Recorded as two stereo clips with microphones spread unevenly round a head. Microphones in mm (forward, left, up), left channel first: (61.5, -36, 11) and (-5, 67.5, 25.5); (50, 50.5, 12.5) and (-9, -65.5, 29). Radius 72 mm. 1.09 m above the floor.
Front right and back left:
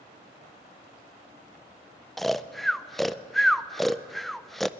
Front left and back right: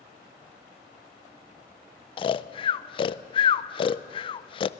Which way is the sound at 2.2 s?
25° left.